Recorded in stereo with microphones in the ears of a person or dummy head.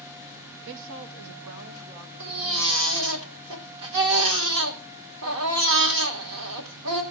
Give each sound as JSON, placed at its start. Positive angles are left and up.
{"t": 0.7, "sound": "a woman speaking", "side_deg": -60, "distance_m": 0.7}
{"t": 2.2, "sound": "a baby crying", "side_deg": -75, "distance_m": 2.0}